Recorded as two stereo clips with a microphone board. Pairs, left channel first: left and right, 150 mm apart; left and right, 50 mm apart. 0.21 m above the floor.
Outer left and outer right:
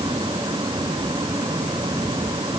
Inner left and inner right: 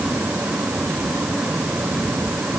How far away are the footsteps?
I don't hear footsteps.